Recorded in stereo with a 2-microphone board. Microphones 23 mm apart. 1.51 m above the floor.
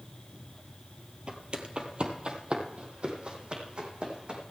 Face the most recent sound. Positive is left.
turn(degrees=-45)  # may be behind; listen again after turning